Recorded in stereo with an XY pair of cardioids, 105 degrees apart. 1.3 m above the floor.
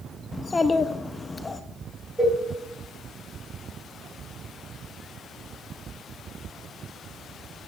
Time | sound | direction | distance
0.3 | a child speaking | 20° left | 0.6 m
2.2 | a cowbell | 10° right | 2.5 m